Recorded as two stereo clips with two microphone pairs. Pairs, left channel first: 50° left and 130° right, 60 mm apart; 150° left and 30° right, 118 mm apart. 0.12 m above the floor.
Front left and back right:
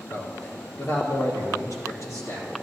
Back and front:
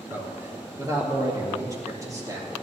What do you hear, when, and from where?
0.1 s a man speaking: 30° left, 1.8 m; by 2.5 s 25° left, 3 m